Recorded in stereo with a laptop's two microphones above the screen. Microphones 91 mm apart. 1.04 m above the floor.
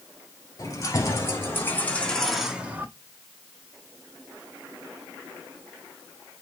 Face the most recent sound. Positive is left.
turn(degrees=-25)  # may be behind; listen again after turning